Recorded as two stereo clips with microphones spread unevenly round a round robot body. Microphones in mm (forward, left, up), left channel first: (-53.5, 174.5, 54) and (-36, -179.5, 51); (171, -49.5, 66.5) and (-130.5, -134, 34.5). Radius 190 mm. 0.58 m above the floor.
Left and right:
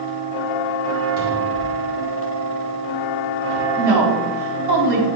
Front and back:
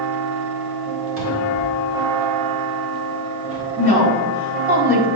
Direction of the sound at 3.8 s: 105° right.